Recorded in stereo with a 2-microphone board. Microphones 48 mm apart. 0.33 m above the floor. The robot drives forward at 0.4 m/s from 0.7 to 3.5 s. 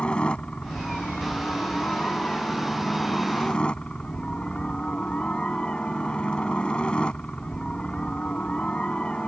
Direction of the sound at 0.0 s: 20° left (ahead or behind).